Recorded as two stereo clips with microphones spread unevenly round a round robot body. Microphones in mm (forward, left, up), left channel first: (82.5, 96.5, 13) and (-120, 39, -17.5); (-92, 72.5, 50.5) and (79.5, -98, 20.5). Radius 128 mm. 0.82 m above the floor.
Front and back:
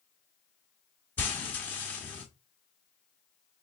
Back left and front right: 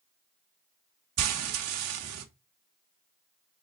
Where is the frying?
70° right, 1.1 m.